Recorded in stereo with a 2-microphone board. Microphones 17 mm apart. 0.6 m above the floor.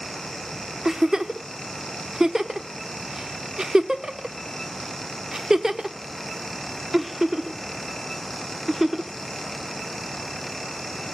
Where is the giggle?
40° right (ahead or behind), 0.9 m.